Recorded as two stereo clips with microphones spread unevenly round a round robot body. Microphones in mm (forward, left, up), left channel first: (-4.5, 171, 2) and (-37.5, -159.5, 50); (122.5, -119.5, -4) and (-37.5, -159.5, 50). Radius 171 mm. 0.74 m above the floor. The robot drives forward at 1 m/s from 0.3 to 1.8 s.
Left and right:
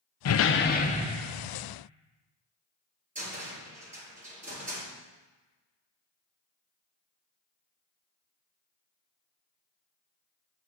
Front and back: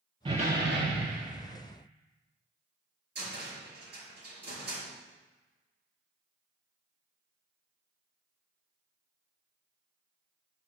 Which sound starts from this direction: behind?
A cupboard door, at 3.1 s.